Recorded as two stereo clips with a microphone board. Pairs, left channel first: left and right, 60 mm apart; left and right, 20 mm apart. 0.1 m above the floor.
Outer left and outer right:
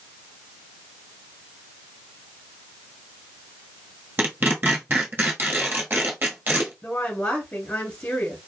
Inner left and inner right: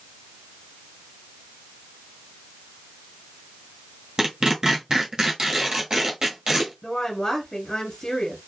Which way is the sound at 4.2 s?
35° right (ahead or behind).